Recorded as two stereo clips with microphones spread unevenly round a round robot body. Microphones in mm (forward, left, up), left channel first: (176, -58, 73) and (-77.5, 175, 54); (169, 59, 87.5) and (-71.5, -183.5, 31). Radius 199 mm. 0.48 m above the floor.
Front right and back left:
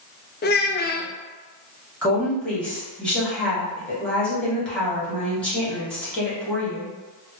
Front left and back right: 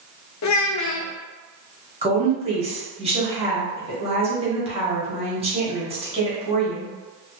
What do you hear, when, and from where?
0.4 s a child speaking: 15° left, 0.6 m
2.0 s a woman speaking: 135° right, 1.4 m